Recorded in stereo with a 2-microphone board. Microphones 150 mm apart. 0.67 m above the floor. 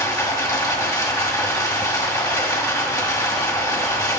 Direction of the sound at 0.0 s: 25° left (ahead or behind).